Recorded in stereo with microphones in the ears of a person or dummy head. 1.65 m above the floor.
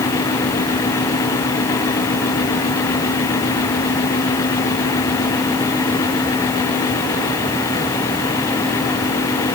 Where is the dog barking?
I don't hear a dog barking.